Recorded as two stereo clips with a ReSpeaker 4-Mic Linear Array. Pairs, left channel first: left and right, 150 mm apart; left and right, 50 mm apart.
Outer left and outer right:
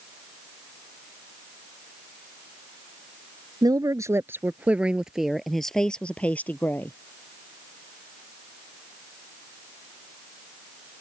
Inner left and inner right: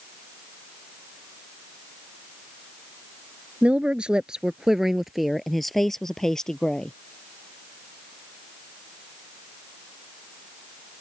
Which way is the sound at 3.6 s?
25° right (ahead or behind).